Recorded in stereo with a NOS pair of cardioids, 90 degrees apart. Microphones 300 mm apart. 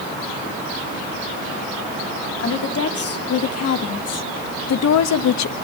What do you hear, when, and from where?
2.4 s a woman speaking: 50° left, 3 m; by 5.5 s 70° left, 1.3 m